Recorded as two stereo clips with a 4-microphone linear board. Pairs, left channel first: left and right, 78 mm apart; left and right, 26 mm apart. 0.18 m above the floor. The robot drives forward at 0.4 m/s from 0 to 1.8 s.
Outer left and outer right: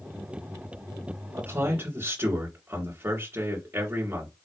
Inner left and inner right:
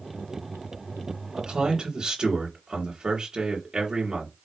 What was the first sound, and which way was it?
A man speaking, 30° right (ahead or behind).